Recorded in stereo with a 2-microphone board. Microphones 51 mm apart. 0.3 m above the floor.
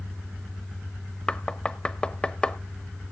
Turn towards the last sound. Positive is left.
turn(degrees=20)  # may be behind; listen again after turning